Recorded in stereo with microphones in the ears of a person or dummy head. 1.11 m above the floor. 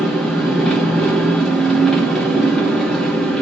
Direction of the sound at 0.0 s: 5° left (ahead or behind).